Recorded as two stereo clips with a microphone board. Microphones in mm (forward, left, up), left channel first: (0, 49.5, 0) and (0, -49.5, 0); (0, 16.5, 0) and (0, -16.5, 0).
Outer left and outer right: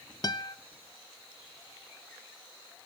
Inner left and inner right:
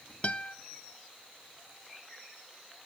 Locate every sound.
0.2 s a guitar: 40° left (ahead or behind), 0.5 m